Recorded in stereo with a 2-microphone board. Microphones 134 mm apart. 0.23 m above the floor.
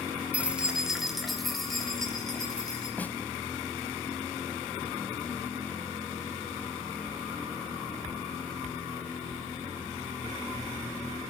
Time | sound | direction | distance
0.3 | keys jangling | 10° right (ahead or behind) | 1.8 m
3.0 | a snare drum | 10° left (ahead or behind) | 0.9 m